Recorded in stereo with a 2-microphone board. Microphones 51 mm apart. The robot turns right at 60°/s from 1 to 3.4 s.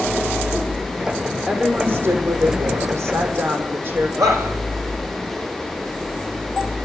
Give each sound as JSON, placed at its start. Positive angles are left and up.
{"t": 1.5, "sound": "a woman speaking", "azimuth_deg": -170, "distance_m": 6.5}
{"t": 4.2, "sound": "a shout", "side_deg": -80, "distance_m": 7.0}